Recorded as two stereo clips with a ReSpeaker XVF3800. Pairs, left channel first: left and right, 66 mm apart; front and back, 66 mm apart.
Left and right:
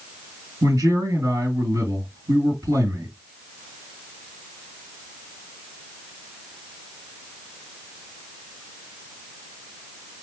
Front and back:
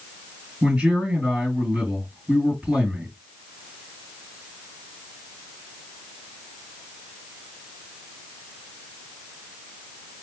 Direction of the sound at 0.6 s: 105° right.